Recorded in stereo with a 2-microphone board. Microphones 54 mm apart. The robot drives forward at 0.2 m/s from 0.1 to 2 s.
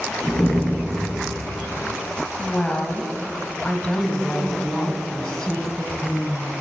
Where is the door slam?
40° left (ahead or behind), 1.9 m; by 1.1 s 35° left (ahead or behind), 2 m.